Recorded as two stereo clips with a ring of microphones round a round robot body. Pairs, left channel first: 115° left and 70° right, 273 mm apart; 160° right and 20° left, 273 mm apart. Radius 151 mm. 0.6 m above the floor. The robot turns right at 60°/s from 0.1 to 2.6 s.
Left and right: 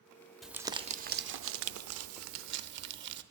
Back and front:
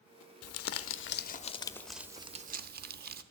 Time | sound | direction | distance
0.4 | crumpling | 155° right | 0.7 m